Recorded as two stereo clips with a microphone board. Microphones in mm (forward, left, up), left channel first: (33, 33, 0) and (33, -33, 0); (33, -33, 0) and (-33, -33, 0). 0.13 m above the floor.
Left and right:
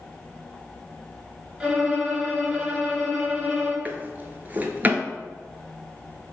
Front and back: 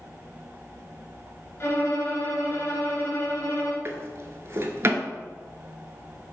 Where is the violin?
15° right, 1.0 m.